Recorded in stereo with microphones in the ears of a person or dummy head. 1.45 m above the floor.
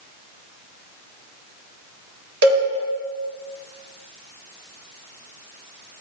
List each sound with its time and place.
2.4 s a cowbell: 55° right (ahead or behind), 1.7 m